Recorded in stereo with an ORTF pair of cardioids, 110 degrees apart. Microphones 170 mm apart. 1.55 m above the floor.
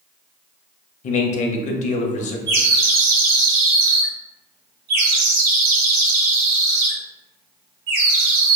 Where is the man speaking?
45° left, 0.6 m.